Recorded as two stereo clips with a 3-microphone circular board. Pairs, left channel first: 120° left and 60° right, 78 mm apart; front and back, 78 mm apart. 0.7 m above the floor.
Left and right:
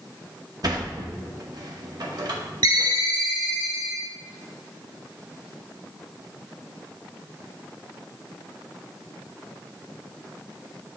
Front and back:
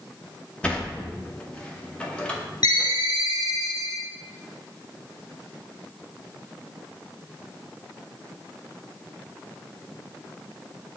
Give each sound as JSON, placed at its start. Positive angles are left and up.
{"t": 0.6, "sound": "a sliding door", "azimuth_deg": -75, "distance_m": 0.9}
{"t": 2.6, "sound": "a ringtone", "azimuth_deg": -30, "distance_m": 0.9}